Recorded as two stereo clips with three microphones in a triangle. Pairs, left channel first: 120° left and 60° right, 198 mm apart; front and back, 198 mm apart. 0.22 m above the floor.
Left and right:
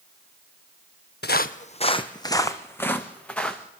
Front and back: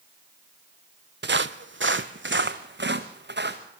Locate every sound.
1.2 s footsteps: 155° left, 0.6 m; by 3.6 s 155° right, 1.8 m